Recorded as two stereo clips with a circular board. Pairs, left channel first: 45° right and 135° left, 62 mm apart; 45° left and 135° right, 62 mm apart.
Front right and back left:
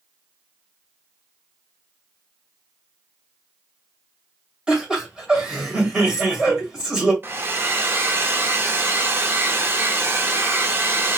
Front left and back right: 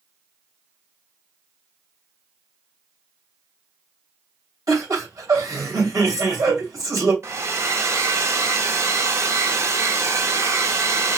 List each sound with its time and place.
4.7 s laughter: 150° right, 2 m
7.2 s a hair dryer: 170° right, 0.6 m